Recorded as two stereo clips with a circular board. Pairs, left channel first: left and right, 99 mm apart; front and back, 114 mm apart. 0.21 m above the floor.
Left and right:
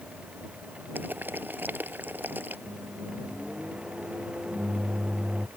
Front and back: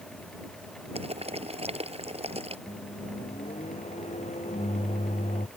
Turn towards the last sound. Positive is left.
turn(degrees=-10)